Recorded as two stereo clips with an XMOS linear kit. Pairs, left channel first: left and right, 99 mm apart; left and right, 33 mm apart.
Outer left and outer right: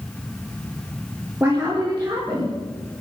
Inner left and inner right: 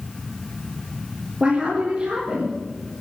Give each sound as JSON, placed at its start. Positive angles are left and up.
{"t": 1.4, "sound": "a woman speaking", "side_deg": -25, "distance_m": 4.0}